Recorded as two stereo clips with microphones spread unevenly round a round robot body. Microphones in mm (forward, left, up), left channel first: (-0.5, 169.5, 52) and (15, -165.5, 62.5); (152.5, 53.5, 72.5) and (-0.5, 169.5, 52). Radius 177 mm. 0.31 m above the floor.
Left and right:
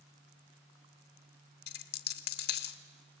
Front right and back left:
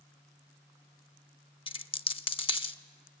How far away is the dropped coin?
About 0.7 m.